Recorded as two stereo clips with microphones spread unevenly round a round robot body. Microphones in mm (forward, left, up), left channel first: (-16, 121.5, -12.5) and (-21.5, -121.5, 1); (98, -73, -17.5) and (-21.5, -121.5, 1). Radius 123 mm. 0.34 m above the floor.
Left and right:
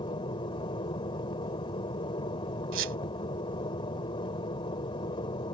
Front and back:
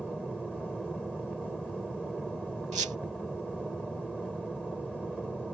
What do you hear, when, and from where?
0.0 s an aircraft: 115° left
2.7 s a squeak: 130° right